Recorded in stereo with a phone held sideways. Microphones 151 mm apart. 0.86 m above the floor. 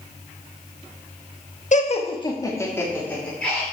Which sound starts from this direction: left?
Laughter, at 1.7 s.